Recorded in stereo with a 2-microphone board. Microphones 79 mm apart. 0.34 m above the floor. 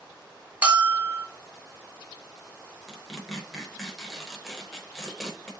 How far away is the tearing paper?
About 0.8 m.